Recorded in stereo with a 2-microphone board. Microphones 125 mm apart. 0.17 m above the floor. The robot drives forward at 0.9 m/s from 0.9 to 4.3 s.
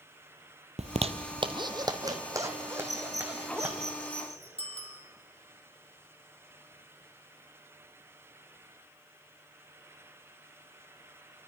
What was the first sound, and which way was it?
A zipper, 60° right (ahead or behind).